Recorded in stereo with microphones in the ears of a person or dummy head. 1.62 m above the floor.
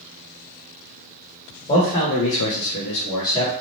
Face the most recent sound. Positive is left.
turn(degrees=20)  # may be behind; listen again after turning